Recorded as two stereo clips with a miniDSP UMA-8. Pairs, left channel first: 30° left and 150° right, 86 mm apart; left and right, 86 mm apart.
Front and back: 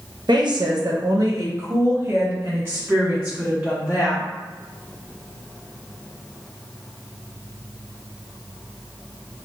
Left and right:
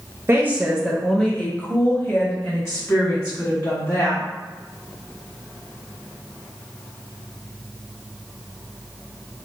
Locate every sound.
0.3 s a woman speaking: 145° right, 0.5 m; by 4.2 s 140° left, 2 m